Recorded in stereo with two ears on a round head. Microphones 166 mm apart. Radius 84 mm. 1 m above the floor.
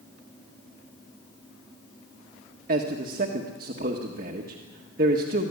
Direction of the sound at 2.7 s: 50° right (ahead or behind).